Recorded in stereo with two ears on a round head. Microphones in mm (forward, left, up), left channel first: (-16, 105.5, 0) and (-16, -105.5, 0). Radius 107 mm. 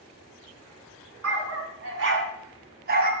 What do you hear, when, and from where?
1.2 s a dog barking: 60° right (ahead or behind), 3 m; by 3.1 s 35° right (ahead or behind), 2.5 m